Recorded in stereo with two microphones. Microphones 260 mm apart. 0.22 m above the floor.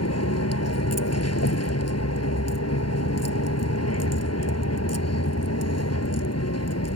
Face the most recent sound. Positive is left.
turn(degrees=75)  # may be behind; listen again after turning